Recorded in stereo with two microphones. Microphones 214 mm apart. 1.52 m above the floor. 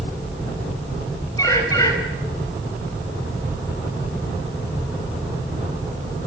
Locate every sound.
1.4 s a bird: 15° left (ahead or behind), 5.5 m